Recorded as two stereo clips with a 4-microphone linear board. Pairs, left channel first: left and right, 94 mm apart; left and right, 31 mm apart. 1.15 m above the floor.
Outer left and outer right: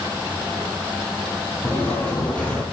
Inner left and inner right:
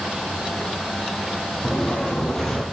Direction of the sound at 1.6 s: 15° left (ahead or behind).